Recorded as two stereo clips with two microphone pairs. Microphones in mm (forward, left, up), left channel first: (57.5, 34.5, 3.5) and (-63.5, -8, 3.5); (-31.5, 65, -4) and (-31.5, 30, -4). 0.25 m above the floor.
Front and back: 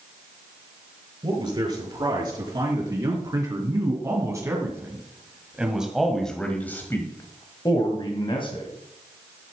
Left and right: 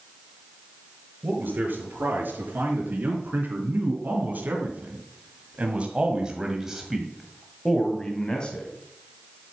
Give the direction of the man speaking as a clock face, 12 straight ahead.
4 o'clock.